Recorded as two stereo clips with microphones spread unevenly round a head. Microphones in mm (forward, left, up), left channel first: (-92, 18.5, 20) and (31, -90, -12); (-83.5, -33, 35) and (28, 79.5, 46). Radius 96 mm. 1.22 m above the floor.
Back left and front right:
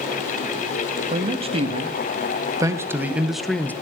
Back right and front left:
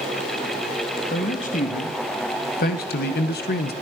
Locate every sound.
1.1 s a man speaking: 90° right, 2.5 m; by 3.7 s 140° right, 1.3 m